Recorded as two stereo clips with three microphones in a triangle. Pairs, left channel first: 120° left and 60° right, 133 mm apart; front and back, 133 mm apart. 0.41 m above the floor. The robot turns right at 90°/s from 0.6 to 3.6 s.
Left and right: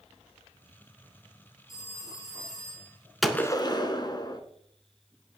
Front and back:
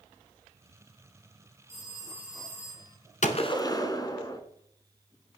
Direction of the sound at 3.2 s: 30° left.